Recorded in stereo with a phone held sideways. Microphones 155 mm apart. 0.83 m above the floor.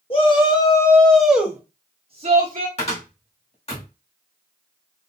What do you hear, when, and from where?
0.1 s a shout: 35° left (ahead or behind), 1.2 m; by 2.7 s 55° right (ahead or behind), 1.2 m
2.8 s a cupboard door: 40° left (ahead or behind), 1.5 m